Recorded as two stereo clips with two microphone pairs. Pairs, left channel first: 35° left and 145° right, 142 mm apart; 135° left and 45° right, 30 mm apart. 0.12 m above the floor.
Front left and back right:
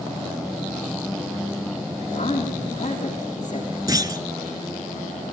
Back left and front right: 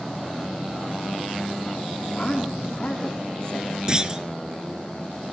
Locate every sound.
2.1 s a woman speaking: 70° left, 6.5 m
3.9 s a clunk: 95° right, 0.7 m